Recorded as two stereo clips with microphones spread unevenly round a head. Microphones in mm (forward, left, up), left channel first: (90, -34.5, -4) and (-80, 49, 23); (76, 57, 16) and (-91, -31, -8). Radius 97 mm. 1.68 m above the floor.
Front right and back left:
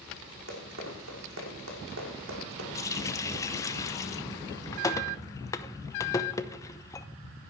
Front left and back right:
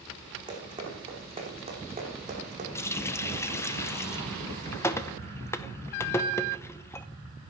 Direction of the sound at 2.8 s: 40° left.